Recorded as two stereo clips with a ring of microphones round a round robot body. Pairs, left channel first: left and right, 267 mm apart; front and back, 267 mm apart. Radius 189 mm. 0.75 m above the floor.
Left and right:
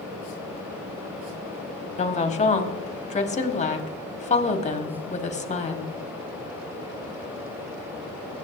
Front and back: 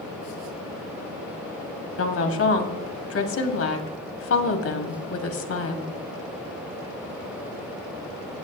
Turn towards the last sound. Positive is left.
turn(degrees=25)